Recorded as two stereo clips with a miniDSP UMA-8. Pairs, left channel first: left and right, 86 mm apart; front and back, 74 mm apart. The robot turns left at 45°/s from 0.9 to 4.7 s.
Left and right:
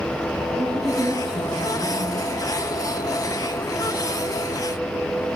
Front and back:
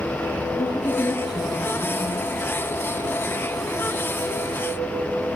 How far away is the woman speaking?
About 5.5 m.